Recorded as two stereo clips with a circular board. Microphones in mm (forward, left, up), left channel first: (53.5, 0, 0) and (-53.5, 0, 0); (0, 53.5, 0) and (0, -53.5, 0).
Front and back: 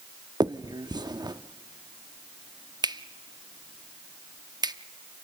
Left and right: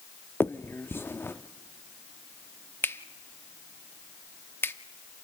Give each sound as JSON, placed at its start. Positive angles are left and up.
{"t": 0.4, "sound": "a finger snap", "azimuth_deg": 150, "distance_m": 0.6}